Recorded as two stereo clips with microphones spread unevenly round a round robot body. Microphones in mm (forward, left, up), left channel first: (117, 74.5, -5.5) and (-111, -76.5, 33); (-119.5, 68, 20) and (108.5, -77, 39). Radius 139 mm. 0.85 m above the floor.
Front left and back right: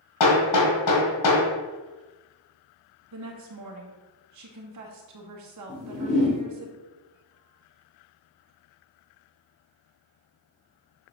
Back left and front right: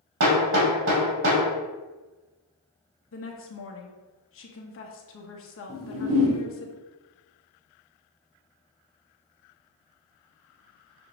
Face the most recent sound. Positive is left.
turn(degrees=-30)